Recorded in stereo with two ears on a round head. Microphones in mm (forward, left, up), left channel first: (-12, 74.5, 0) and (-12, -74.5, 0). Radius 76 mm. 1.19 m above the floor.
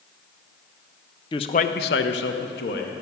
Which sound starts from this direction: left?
A man speaking, at 1.3 s.